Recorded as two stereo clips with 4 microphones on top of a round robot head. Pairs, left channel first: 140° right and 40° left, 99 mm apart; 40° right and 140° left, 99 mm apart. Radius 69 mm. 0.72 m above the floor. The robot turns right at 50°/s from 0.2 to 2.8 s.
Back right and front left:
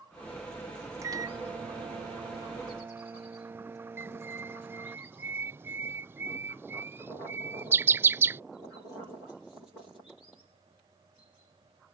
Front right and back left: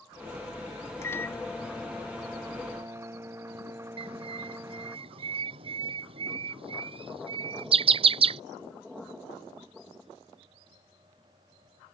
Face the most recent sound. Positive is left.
turn(degrees=110)